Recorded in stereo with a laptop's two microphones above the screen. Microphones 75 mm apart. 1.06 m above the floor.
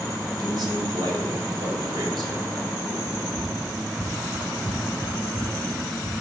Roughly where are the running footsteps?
Right.